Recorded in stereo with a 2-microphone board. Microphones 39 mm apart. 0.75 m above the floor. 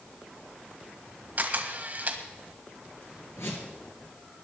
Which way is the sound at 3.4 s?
80° left.